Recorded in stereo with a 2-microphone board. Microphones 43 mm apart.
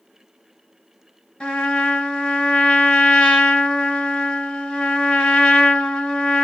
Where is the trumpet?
20° left (ahead or behind), 2 m.